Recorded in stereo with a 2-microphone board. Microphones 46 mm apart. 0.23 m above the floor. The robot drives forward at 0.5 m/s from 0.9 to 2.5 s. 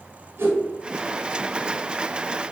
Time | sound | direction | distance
0.4 | a whoosh | 55° right (ahead or behind) | 1.1 m